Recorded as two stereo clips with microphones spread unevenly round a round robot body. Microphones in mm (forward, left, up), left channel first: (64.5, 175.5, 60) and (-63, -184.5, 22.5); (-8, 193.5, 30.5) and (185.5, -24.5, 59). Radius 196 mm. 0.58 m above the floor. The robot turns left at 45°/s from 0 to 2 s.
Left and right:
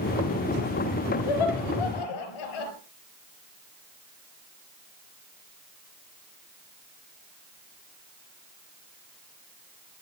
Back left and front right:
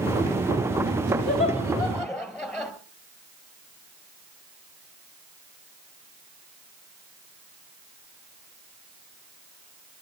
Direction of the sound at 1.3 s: 75° left.